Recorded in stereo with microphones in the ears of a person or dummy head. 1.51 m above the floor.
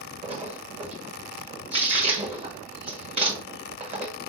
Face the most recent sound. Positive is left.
turn(degrees=-35)  # may be behind; listen again after turning